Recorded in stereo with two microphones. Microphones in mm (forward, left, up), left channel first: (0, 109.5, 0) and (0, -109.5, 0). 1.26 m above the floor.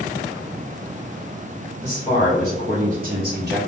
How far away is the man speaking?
About 1.2 m.